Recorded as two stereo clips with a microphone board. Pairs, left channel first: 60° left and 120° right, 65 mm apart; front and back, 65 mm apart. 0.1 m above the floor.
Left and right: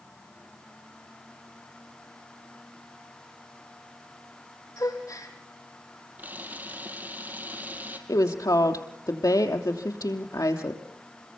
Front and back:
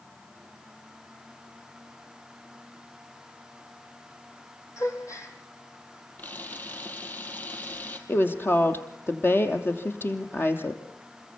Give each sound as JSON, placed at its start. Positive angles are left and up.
{"t": 4.8, "sound": "a gasp", "azimuth_deg": 30, "distance_m": 3.5}
{"t": 6.2, "sound": "a camera shutter", "azimuth_deg": -60, "distance_m": 3.0}
{"t": 8.1, "sound": "a woman speaking", "azimuth_deg": 50, "distance_m": 3.0}